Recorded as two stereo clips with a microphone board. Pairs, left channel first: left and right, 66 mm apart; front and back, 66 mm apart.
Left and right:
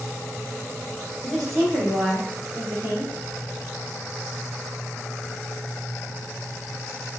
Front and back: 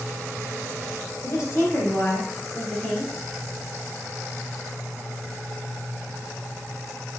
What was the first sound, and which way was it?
A woman speaking, 10° left.